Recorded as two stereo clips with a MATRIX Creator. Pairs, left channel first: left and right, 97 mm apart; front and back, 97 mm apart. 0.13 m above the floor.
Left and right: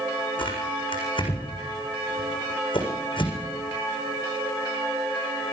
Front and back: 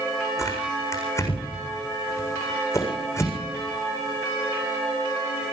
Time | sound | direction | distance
0.4 | tearing paper | 60° left | 7.5 m